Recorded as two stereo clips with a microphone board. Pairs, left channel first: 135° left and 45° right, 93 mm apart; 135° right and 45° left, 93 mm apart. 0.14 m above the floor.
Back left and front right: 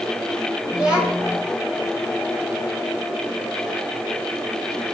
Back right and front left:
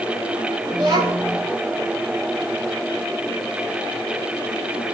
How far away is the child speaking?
About 9 m.